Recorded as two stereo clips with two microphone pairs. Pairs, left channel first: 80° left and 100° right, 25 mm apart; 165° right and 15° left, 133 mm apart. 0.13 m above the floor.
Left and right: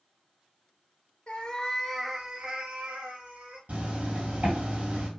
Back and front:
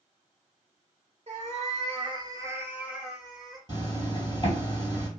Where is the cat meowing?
35° left, 0.7 m; by 3.6 s 80° right, 1.4 m.